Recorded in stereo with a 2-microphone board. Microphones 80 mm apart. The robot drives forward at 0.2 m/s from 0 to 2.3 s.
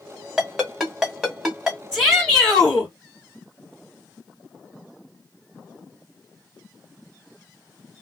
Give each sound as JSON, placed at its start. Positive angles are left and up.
{"t": 0.4, "sound": "a ringtone", "side_deg": -5, "distance_m": 1.5}
{"t": 1.9, "sound": "a shout", "side_deg": -15, "distance_m": 2.0}